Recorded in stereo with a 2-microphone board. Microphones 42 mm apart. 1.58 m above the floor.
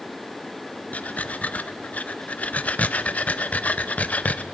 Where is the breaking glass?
I don't hear breaking glass.